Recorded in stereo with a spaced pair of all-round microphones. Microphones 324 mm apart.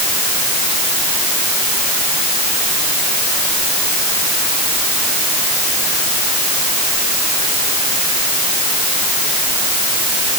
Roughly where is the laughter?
No laughter in this recording.